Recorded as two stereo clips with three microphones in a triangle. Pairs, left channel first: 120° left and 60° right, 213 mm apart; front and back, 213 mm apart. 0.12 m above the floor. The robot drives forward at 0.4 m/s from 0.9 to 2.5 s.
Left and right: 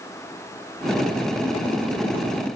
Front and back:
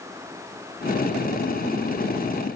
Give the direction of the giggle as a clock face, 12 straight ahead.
I don't hear a giggle.